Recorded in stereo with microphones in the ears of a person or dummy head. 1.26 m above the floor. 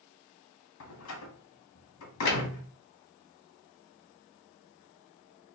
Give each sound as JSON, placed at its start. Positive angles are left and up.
{"t": 0.8, "sound": "a door slam", "side_deg": 80, "distance_m": 1.0}
{"t": 2.3, "sound": "a snare drum", "side_deg": 45, "distance_m": 0.8}